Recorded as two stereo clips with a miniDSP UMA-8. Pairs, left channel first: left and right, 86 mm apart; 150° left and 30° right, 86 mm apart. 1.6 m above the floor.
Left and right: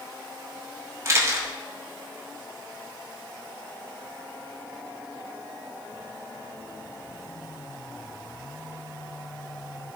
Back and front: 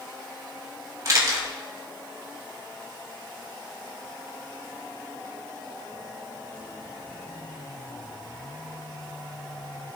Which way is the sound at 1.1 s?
55° right.